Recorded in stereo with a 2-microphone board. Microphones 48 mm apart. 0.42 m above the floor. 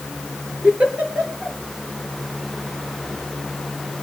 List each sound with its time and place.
0.6 s a giggle: 30° right (ahead or behind), 4.5 m